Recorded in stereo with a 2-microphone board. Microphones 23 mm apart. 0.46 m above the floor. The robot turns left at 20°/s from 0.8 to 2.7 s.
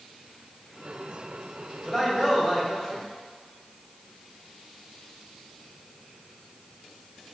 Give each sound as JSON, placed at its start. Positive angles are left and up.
{"t": 1.9, "sound": "a man speaking", "side_deg": 5, "distance_m": 0.8}